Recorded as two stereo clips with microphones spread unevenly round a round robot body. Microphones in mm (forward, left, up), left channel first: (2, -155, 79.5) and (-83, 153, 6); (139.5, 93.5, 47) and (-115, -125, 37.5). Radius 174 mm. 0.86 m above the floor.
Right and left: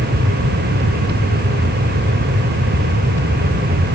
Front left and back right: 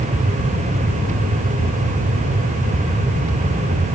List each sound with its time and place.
Only background noise.